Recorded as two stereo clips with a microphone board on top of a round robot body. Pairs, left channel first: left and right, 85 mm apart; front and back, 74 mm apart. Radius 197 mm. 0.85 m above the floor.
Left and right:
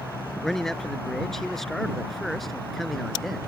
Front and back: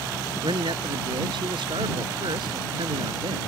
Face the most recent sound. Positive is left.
turn(degrees=180)